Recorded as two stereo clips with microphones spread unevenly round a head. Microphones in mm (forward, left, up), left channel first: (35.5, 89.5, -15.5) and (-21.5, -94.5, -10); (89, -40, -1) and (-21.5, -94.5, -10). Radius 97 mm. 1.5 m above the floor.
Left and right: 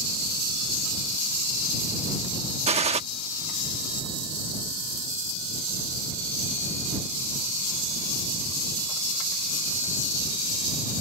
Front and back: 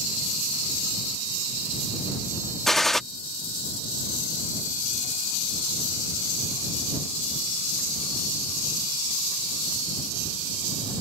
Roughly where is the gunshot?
Ahead right.